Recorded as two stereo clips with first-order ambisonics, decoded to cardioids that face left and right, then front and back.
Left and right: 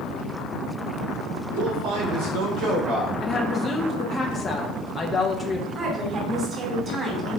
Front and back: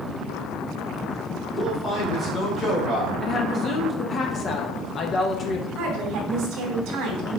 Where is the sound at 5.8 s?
155° right, 3 m.